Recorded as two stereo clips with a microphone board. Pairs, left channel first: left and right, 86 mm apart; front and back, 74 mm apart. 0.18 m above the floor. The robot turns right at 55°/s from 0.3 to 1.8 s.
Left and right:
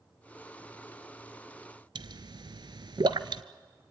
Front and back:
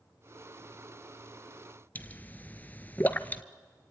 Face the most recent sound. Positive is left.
turn(degrees=-65)